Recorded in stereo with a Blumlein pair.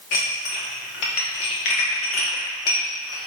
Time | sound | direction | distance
0.1 | dishes clattering | 40° left | 2.0 m